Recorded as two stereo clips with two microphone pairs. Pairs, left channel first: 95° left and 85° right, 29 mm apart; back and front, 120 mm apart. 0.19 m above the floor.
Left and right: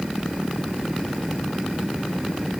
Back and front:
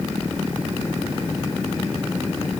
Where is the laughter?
No laughter in this recording.